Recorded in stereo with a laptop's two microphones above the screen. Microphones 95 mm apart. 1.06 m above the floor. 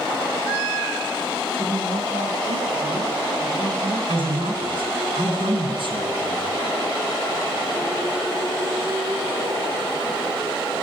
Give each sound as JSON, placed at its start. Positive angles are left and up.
{"t": 1.5, "sound": "a woman speaking", "side_deg": -80, "distance_m": 6.5}
{"t": 4.1, "sound": "a man speaking", "side_deg": -60, "distance_m": 8.5}